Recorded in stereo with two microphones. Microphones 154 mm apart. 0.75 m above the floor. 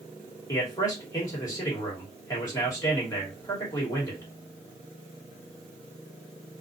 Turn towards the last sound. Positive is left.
turn(degrees=25)  # may be behind; listen again after turning